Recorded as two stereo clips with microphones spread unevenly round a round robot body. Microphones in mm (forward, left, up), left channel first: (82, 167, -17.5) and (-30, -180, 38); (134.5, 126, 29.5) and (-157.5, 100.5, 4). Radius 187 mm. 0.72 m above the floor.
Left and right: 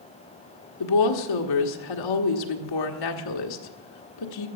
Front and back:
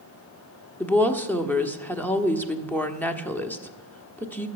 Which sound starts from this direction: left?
A woman speaking, at 0.8 s.